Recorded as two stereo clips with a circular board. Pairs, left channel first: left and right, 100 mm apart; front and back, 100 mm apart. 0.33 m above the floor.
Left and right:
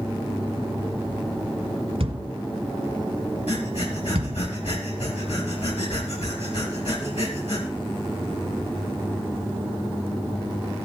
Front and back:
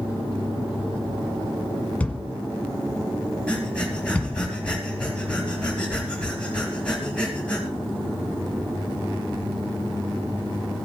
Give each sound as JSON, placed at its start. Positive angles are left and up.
{"t": 2.0, "sound": "a thud", "azimuth_deg": -75, "distance_m": 1.3}
{"t": 3.5, "sound": "breathing", "azimuth_deg": 80, "distance_m": 4.5}